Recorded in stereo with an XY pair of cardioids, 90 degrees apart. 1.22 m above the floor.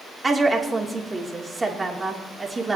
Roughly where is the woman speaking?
Ahead right.